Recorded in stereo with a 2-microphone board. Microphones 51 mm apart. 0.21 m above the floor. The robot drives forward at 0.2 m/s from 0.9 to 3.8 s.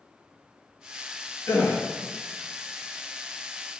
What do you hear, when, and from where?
1.5 s a gasp: 55° left (ahead or behind), 0.6 m; by 1.8 s 50° left (ahead or behind), 0.7 m